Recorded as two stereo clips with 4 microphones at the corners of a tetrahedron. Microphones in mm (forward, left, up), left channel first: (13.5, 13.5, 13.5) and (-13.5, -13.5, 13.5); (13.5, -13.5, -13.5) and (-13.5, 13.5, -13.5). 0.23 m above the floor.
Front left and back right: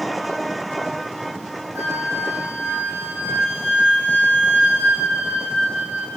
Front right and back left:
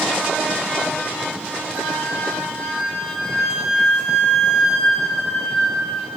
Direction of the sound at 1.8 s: 135° right.